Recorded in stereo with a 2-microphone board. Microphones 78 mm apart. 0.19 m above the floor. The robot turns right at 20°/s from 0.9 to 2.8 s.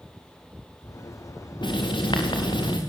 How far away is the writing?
About 5 m.